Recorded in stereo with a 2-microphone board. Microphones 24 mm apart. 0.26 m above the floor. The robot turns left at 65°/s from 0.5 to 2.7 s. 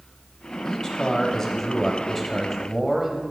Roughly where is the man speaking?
Left.